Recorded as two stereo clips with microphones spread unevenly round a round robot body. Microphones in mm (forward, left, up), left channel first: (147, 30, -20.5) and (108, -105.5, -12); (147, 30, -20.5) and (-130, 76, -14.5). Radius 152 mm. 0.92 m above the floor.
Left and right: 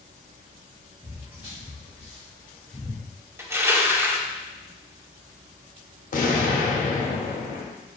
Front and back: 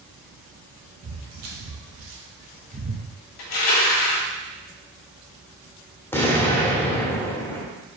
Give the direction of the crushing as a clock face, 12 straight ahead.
1 o'clock.